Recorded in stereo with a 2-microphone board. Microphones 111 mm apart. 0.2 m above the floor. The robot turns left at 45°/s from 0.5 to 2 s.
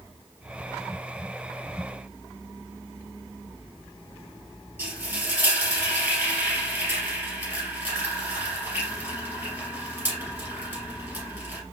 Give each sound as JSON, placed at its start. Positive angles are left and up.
{"t": 4.8, "sound": "frying", "side_deg": -15, "distance_m": 2.5}